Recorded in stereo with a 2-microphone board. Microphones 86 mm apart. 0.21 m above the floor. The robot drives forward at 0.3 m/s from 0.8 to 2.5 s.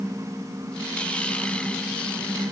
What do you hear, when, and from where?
Only background noise.